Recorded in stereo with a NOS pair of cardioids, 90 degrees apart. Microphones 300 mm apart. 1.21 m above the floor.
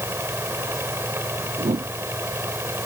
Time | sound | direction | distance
0.0 | a fan | 10° right | ?
1.6 | a whoosh | 20° right | ?